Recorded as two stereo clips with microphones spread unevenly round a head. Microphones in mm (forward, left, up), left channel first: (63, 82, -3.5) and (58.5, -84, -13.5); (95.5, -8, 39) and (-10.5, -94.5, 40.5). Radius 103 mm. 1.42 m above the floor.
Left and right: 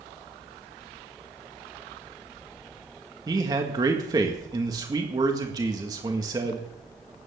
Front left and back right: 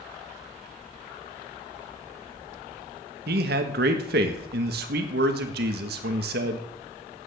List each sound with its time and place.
3.3 s a man speaking: 165° right, 1.6 m